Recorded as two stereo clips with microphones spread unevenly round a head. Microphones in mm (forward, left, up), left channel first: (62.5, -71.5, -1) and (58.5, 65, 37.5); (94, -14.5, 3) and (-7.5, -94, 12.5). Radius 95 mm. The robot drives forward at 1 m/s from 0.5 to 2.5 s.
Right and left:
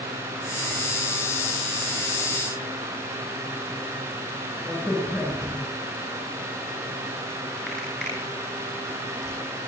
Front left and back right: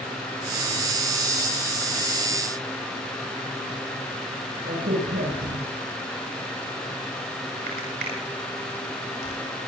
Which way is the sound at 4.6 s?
175° right.